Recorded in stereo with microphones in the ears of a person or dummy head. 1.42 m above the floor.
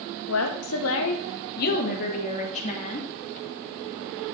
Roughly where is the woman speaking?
Left.